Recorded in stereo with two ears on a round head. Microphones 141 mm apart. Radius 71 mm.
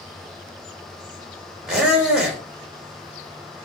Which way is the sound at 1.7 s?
5° right (ahead or behind).